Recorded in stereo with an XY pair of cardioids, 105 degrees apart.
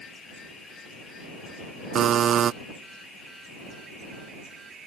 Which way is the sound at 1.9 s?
55° right.